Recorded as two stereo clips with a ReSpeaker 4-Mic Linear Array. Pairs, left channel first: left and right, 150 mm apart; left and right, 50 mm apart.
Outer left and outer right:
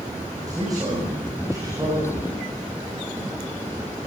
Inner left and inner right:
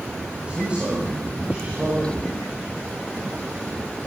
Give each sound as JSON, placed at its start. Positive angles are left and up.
{"t": 0.5, "sound": "a man speaking", "side_deg": -25, "distance_m": 9.5}